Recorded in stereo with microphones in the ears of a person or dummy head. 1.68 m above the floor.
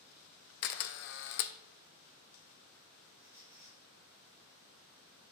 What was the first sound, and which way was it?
A camera shutter, 60° left (ahead or behind).